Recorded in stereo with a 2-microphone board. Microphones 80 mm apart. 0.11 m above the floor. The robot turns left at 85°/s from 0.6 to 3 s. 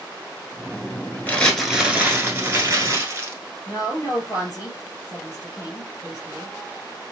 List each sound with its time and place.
1.3 s crumpling: 35° left, 1.0 m; by 3.4 s 110° right, 1.0 m
3.7 s a woman speaking: 40° left (ahead or behind), 1.9 m